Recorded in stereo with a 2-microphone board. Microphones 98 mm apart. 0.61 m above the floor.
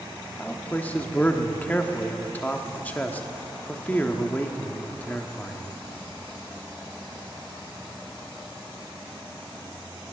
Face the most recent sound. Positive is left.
turn(degrees=15)  # may be behind; listen again after turning